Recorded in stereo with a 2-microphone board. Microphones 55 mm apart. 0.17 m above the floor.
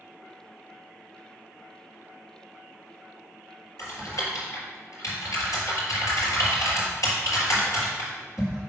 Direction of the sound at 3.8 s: 70° left (ahead or behind).